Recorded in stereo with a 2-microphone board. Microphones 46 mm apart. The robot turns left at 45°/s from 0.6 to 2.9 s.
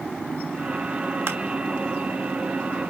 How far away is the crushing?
About 2 m.